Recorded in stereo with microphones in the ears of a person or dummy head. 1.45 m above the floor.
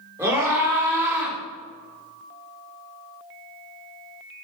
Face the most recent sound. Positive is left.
turn(degrees=-10)  # may be behind; listen again after turning